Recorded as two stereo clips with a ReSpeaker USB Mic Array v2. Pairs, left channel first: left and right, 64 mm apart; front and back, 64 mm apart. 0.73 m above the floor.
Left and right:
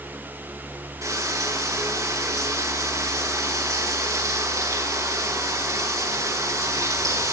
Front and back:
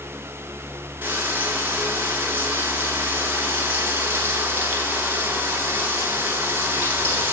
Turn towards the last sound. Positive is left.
turn(degrees=-120)